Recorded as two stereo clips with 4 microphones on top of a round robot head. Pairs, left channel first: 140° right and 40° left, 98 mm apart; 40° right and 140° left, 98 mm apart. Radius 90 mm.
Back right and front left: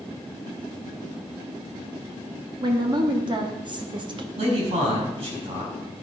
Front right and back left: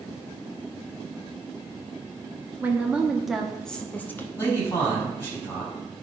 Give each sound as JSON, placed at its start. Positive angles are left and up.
{"t": 2.6, "sound": "a woman speaking", "azimuth_deg": 70, "distance_m": 1.5}
{"t": 4.4, "sound": "a man speaking", "azimuth_deg": 25, "distance_m": 5.5}